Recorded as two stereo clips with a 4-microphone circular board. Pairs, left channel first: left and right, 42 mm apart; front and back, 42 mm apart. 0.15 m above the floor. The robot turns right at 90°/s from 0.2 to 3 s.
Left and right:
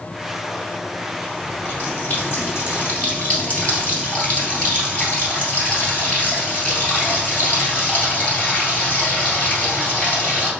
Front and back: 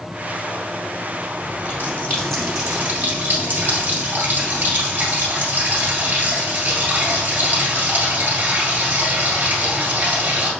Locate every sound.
1.4 s a running tap: 5° left, 2 m; by 10.5 s 150° left, 2 m